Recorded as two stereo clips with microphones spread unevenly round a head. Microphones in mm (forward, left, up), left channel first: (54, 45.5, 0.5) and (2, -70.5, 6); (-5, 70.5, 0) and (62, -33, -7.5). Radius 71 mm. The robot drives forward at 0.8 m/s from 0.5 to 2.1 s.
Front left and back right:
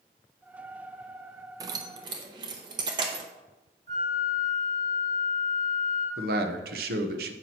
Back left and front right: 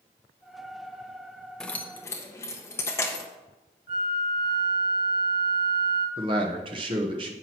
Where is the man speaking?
115° right, 1.0 m.